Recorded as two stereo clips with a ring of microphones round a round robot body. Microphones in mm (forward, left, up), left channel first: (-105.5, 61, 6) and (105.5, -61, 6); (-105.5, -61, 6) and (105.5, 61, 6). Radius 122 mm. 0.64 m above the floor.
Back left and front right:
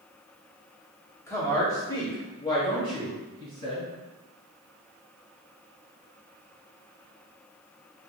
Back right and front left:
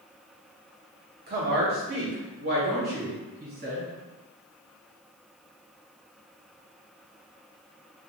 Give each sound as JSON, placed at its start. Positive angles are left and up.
{"t": 1.3, "sound": "a woman speaking", "azimuth_deg": 75, "distance_m": 1.3}